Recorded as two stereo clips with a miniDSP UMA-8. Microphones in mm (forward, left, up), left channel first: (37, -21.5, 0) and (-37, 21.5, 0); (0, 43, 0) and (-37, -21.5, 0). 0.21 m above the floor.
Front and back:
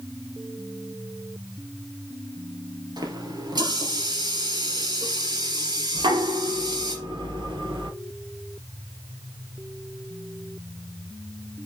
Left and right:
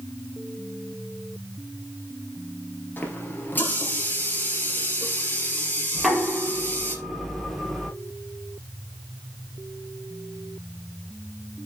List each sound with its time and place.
3.0 s a running tap: 120° left, 3 m
6.0 s knocking: 150° left, 3.5 m